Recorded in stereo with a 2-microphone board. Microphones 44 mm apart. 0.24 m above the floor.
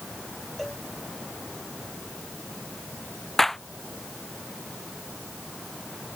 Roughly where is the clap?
Centre.